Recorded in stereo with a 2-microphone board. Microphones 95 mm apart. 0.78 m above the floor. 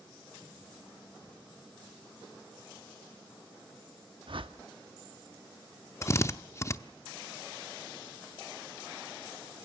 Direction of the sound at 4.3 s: 65° right (ahead or behind).